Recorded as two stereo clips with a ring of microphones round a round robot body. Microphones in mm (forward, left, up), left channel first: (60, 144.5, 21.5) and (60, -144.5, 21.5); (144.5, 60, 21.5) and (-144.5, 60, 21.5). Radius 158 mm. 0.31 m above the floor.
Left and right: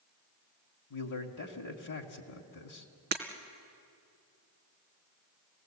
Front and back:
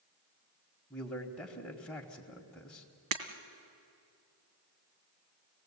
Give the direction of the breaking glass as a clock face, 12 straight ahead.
5 o'clock.